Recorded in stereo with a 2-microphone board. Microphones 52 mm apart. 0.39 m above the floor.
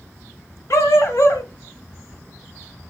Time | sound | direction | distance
0.7 | a dog barking | 70° left (ahead or behind) | 0.7 m